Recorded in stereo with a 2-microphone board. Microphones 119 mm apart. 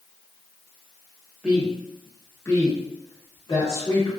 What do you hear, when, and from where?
1.4 s a woman speaking: 10° right (ahead or behind), 0.8 m; by 4.1 s 45° left (ahead or behind), 1.2 m